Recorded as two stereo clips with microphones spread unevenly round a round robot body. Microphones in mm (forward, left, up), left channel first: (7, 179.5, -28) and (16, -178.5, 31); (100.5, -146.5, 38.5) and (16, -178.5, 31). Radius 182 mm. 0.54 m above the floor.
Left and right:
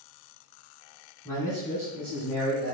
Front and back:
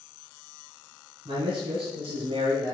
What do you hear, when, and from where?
1.2 s a man speaking: 170° left, 4.5 m; by 2.8 s 175° right, 5 m